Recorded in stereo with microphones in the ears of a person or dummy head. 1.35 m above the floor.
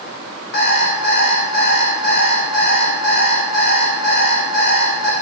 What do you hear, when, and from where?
0.5 s an alarm clock: 60° left (ahead or behind), 3.5 m